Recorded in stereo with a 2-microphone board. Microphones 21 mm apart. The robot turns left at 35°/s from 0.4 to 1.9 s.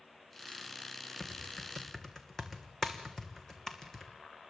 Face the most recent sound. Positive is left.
turn(degrees=25)  # may be behind; listen again after turning